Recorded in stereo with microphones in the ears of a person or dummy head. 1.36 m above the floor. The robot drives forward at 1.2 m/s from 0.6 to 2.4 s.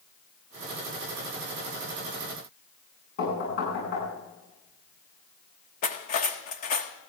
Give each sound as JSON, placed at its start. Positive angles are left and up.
{"t": 3.2, "sound": "knocking", "side_deg": 55, "distance_m": 10.0}
{"t": 5.8, "sound": "cutlery clinking", "side_deg": 45, "distance_m": 1.3}